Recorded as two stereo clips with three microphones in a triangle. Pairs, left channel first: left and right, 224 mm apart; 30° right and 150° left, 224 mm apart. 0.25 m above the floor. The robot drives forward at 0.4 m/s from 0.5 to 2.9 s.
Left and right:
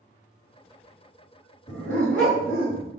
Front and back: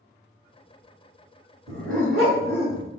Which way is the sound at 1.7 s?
175° left.